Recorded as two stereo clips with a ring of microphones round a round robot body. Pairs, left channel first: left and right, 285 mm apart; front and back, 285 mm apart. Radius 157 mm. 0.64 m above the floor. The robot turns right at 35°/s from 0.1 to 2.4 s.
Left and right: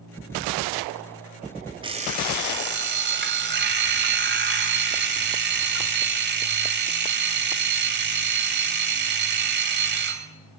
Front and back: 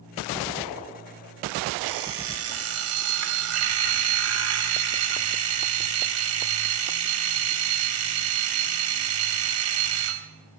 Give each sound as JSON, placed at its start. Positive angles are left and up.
{"t": 1.8, "sound": "an alarm clock", "azimuth_deg": -165, "distance_m": 2.0}